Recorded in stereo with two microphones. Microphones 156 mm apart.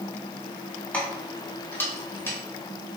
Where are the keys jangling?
10° left (ahead or behind), 1.9 m; by 2.4 s 15° left (ahead or behind), 2.5 m.